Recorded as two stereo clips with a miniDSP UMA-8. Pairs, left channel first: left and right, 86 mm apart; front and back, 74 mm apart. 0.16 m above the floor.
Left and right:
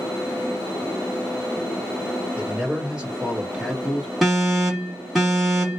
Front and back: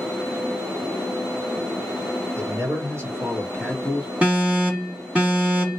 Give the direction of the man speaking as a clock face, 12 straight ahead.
5 o'clock.